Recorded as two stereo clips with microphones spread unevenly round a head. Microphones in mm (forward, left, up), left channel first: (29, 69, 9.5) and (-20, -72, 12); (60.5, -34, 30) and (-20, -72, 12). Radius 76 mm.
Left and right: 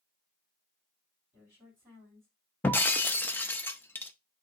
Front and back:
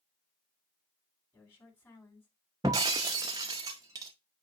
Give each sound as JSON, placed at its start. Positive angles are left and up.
{"t": 1.3, "sound": "a woman speaking", "azimuth_deg": -35, "distance_m": 4.5}
{"t": 2.6, "sound": "breaking glass", "azimuth_deg": 145, "distance_m": 0.6}